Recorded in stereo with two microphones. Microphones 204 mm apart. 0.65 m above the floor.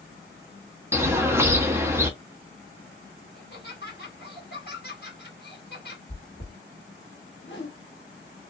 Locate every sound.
0.9 s a bird: 10° right (ahead or behind), 0.7 m
3.4 s laughter: 55° left (ahead or behind), 1.4 m
6.1 s chewing: 55° left (ahead or behind), 1.7 m
7.4 s a whoosh: 60° left (ahead or behind), 0.9 m